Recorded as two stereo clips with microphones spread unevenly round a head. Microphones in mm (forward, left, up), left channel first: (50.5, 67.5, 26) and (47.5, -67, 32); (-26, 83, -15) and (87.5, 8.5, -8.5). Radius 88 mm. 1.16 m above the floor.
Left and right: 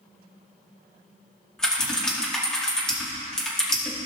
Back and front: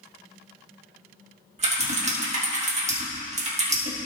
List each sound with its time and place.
1.6 s typing on a keyboard: 5° left, 1.9 m